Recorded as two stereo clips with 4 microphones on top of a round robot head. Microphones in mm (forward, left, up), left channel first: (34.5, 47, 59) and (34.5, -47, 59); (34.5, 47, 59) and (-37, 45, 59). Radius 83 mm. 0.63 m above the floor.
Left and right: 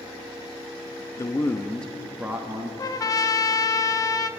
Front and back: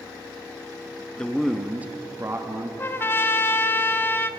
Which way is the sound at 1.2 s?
70° left.